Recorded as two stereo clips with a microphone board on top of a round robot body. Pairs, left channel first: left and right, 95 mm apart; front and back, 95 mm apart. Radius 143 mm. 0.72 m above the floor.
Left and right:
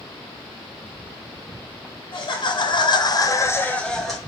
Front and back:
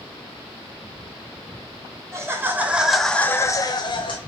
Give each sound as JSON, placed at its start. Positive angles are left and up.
{"t": 2.1, "sound": "laughter", "azimuth_deg": 120, "distance_m": 1.1}